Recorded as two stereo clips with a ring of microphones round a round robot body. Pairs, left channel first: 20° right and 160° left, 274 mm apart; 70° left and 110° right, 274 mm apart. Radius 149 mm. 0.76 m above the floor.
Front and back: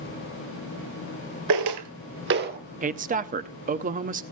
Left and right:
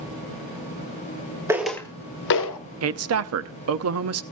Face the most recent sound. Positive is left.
turn(degrees=-140)